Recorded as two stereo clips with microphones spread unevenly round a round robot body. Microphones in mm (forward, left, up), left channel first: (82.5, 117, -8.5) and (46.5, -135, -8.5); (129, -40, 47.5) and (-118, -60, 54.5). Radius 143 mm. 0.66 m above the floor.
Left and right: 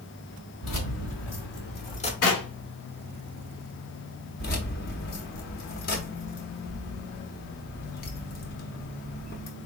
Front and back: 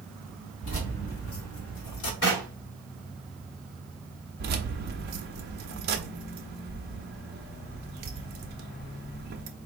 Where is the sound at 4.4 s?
135° left, 0.5 m.